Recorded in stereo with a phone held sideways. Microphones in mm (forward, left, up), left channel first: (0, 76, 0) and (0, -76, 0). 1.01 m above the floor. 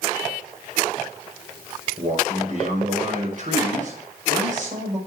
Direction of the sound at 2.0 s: 55° right (ahead or behind).